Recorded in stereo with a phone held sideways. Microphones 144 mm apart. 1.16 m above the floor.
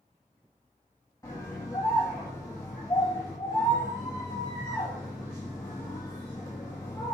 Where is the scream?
25° left (ahead or behind), 1.8 m.